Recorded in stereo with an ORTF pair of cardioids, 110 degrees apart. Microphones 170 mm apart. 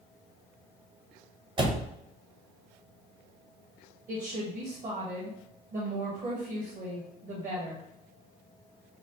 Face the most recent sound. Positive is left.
turn(degrees=-50)